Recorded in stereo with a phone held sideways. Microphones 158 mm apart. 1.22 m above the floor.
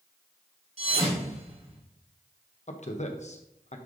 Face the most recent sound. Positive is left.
turn(degrees=45)  # may be behind; listen again after turning